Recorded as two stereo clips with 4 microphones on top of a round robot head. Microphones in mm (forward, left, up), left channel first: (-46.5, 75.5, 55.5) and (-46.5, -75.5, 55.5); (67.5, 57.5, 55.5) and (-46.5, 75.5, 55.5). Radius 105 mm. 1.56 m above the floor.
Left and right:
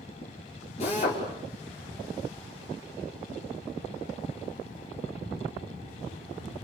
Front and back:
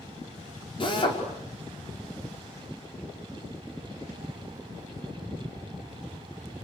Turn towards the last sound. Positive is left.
turn(degrees=35)